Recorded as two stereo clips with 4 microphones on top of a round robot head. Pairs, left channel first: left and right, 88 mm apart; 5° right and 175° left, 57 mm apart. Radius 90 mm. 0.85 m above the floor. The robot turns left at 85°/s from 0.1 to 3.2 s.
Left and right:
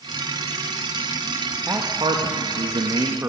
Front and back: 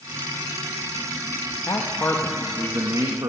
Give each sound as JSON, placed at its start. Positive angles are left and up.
{"t": 1.7, "sound": "a man speaking", "azimuth_deg": -25, "distance_m": 1.0}